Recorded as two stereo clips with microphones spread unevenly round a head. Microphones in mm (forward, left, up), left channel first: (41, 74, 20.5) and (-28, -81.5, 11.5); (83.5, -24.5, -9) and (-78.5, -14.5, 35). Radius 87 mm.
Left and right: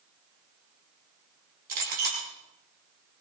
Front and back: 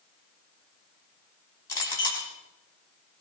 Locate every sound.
1.7 s a clink: 75° right, 6.5 m